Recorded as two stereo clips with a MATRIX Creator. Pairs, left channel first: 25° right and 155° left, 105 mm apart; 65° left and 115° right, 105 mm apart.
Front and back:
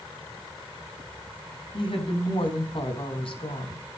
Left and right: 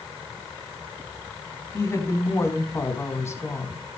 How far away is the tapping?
I don't hear tapping.